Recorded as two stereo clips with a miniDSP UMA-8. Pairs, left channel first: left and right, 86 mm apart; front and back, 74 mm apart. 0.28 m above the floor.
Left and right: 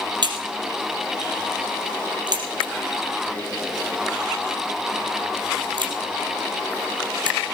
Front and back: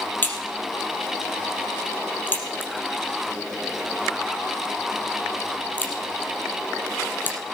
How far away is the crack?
About 3.5 m.